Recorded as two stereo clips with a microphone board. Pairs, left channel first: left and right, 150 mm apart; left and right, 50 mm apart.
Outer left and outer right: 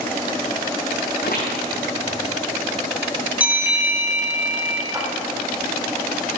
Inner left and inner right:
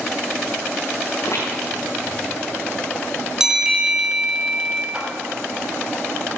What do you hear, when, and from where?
1.1 s footsteps: 75° left (ahead or behind), 5.5 m
3.4 s a bell: 10° right (ahead or behind), 1.8 m
4.9 s a clap: 20° right (ahead or behind), 3.5 m